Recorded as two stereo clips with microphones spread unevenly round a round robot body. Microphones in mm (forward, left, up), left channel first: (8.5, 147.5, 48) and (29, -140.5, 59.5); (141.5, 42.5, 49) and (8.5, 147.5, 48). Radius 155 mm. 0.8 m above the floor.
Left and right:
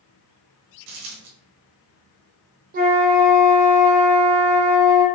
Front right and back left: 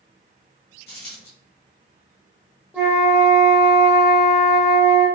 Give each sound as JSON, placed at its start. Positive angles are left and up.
{"t": 0.9, "sound": "a dropped coin", "azimuth_deg": -100, "distance_m": 1.4}
{"t": 2.7, "sound": "a flute", "azimuth_deg": -135, "distance_m": 0.6}